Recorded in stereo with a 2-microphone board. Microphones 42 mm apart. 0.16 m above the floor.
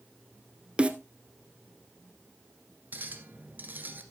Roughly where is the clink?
Right.